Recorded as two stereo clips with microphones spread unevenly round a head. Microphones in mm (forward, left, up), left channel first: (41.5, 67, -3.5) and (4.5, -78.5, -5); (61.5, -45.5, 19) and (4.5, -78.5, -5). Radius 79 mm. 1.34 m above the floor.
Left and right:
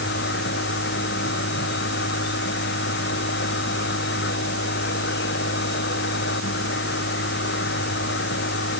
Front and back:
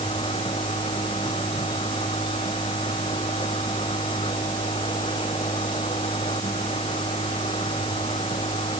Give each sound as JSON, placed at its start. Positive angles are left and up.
{"t": 0.0, "sound": "a machine running", "azimuth_deg": 65}